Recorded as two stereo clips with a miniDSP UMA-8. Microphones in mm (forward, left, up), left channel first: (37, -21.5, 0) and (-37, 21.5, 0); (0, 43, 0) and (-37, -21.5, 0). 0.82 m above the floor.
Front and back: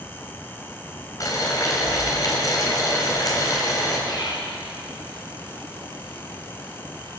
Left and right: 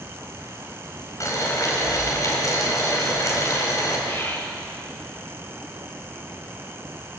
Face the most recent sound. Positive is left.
turn(degrees=5)